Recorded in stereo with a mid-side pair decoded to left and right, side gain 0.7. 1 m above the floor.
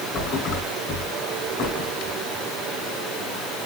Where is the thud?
45° left, 4.5 m.